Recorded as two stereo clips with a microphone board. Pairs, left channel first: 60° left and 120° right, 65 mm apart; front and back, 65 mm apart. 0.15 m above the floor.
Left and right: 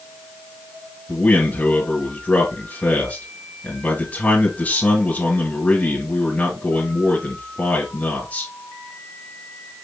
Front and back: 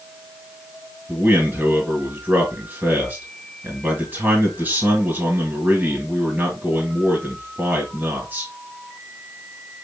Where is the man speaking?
125° left, 2 m.